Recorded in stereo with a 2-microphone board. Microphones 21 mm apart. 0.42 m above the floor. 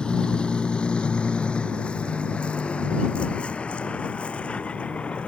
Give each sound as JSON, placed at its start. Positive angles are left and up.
{"t": 0.0, "sound": "a vehicle", "side_deg": 50}